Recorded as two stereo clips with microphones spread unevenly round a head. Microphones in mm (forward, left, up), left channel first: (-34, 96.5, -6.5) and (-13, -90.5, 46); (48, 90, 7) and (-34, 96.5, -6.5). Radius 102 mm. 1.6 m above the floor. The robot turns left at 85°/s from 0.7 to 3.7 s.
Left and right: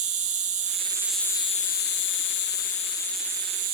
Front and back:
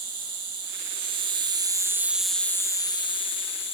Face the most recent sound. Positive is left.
turn(degrees=-35)